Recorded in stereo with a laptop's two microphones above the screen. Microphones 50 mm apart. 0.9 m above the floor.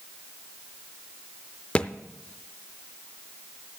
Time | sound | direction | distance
1.8 | a thud | 25° left (ahead or behind) | 0.5 m